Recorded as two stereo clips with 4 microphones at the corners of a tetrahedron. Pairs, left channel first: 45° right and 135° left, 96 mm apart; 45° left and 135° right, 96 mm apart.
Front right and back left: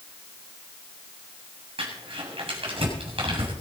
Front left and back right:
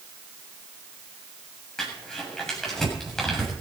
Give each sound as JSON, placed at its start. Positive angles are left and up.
{"t": 1.8, "sound": "crumpling", "azimuth_deg": 130, "distance_m": 7.0}